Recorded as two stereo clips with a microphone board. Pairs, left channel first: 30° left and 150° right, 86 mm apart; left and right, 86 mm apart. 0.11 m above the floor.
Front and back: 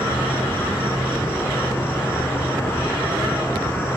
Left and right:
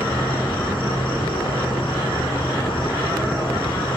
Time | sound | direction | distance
0.0 | an insect | 95° left | 4.5 m